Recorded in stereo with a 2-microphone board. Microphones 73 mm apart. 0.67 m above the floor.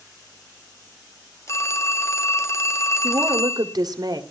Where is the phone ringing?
40° left (ahead or behind), 0.8 m.